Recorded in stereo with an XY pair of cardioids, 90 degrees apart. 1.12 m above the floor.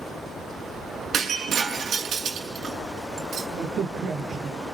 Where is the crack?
65° right, 4.5 m.